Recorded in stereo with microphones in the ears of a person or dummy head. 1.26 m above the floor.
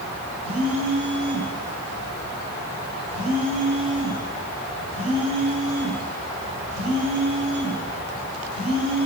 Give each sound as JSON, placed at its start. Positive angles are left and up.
{"t": 0.4, "sound": "a phone buzzing", "side_deg": -35, "distance_m": 2.5}